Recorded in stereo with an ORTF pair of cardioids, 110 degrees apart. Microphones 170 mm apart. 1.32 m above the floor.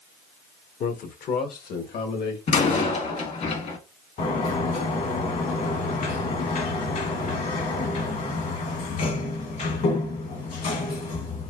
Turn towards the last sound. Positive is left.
turn(degrees=50)